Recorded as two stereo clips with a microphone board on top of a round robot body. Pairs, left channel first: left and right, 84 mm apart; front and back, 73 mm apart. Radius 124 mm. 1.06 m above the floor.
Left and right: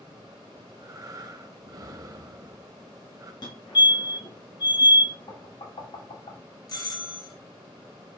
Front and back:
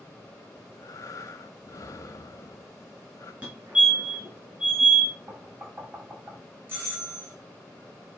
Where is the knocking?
120° left, 3 m.